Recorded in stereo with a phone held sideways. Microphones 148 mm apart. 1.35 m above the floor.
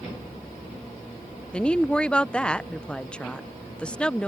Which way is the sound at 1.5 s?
10° left (ahead or behind).